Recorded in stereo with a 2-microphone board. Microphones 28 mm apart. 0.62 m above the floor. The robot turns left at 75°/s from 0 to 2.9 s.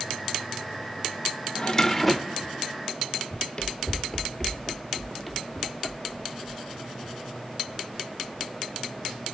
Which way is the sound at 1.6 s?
40° left.